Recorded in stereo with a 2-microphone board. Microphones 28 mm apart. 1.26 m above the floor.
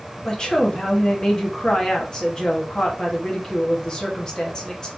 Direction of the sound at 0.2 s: 25° left (ahead or behind).